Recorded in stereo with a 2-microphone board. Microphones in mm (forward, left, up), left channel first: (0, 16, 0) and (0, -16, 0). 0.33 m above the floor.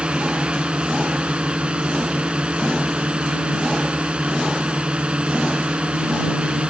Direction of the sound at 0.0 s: 35° right (ahead or behind).